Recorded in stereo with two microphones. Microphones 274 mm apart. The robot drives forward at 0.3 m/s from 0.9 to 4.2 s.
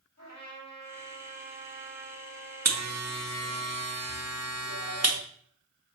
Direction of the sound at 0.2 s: 70° left (ahead or behind).